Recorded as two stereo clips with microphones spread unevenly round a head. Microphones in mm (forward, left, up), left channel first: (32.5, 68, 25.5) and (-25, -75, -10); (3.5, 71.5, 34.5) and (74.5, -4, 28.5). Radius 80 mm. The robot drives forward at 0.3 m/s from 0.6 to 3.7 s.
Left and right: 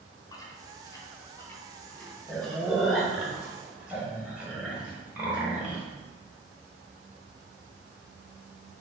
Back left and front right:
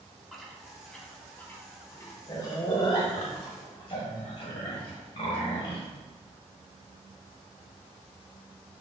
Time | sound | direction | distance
0.3 | chewing | 45° left | 0.7 m